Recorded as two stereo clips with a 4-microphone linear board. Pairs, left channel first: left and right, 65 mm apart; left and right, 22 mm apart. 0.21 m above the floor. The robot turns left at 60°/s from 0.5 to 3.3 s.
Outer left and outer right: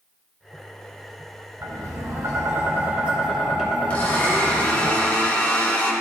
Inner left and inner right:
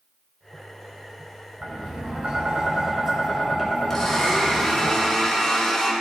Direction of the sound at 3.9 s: 20° left (ahead or behind).